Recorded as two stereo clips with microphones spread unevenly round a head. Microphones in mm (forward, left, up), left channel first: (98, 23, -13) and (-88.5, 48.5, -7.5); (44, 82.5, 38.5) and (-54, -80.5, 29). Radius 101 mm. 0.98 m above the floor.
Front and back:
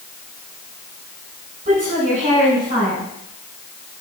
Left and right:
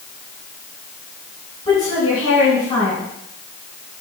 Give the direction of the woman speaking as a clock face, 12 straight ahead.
8 o'clock.